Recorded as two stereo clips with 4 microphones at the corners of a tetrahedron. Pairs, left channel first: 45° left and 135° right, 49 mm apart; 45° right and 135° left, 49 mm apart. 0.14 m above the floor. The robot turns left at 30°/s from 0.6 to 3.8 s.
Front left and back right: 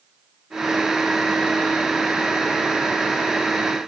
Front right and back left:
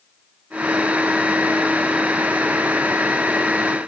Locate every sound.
Only background noise.